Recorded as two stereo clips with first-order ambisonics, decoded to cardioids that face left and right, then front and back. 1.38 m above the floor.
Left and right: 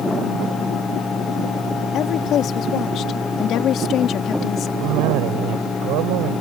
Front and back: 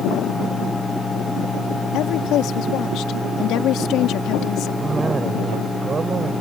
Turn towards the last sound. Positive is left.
turn(degrees=-110)